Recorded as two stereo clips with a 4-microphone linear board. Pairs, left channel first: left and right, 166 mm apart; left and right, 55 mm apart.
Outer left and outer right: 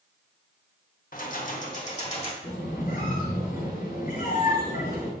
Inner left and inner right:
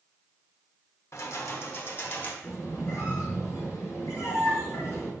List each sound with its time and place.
1.1 s keys jangling: 55° left (ahead or behind), 0.9 m; by 2.3 s 40° left (ahead or behind), 1.5 m
2.4 s a squeak: 55° left (ahead or behind), 3 m